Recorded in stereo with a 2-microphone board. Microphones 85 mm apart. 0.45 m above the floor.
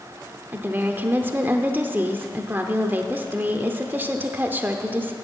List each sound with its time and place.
0.5 s a woman speaking: 25° right (ahead or behind), 0.8 m